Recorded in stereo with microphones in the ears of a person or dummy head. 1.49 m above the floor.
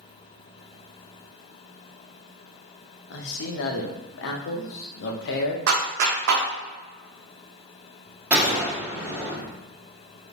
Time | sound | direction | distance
3.1 | a man speaking | 70° left (ahead or behind) | 0.7 m
5.7 | a clap | 65° right (ahead or behind) | 0.9 m
8.3 | a gunshot | 10° right (ahead or behind) | 1.4 m